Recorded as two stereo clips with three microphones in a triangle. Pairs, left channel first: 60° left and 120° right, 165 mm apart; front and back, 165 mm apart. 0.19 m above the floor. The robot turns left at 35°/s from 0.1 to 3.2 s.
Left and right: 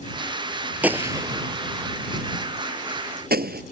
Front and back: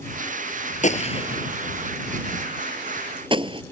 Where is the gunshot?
40° right; by 3.6 s 120° right.